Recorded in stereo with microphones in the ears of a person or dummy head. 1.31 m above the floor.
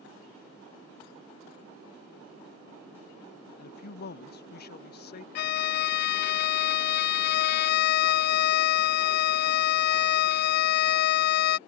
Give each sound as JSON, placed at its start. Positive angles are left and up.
{"t": 3.6, "sound": "a man speaking", "side_deg": 55}
{"t": 5.3, "sound": "a violin", "side_deg": 50}